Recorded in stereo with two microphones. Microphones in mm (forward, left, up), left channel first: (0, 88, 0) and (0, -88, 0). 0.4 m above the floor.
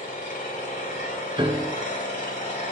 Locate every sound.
0.0 s an engine running: 45° left (ahead or behind), 2.5 m
1.4 s a piano: 25° right (ahead or behind), 0.7 m